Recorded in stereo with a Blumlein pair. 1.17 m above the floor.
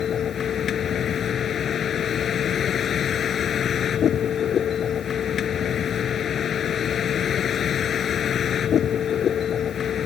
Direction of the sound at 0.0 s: 25° left.